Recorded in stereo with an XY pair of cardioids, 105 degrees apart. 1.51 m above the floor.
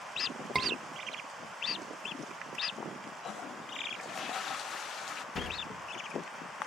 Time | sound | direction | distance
0.6 | a scream | 25° right | 1.8 m
3.2 | a toilet flushing | 55° left | 0.8 m
5.3 | a sliding door | 40° left | 2 m